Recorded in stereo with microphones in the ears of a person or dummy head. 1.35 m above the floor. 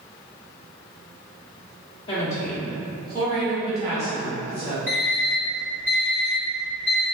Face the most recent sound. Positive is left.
turn(degrees=-45)  # may be behind; listen again after turning